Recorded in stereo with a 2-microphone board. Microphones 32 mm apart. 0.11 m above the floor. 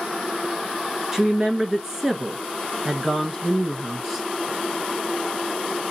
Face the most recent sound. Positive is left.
turn(degrees=-15)  # may be behind; listen again after turning